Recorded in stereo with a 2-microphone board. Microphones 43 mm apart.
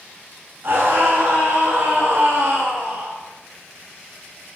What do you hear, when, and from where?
0.6 s a scream: 65° right (ahead or behind), 7.5 m; by 3.1 s 60° right (ahead or behind), 5.5 m